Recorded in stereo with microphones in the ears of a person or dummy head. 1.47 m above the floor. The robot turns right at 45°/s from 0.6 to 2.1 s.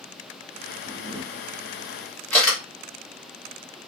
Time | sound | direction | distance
0.8 | a camera shutter | 40° right (ahead or behind) | 1.4 m